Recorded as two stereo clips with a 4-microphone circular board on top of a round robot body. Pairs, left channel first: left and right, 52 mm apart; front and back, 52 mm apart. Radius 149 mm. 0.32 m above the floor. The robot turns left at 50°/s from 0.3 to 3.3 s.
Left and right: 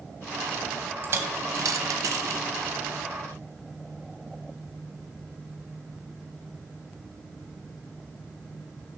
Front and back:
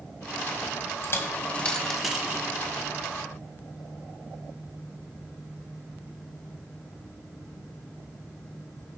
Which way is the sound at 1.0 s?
40° right.